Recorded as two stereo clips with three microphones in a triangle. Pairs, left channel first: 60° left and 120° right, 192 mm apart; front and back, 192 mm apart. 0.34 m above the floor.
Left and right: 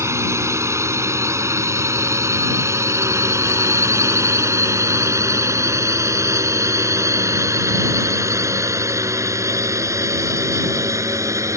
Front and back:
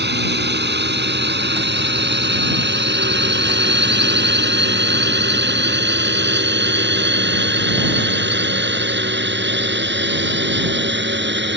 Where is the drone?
165° left.